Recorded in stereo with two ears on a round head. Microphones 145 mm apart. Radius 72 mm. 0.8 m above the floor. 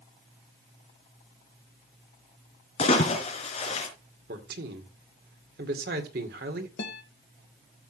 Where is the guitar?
70° left (ahead or behind), 1.3 m.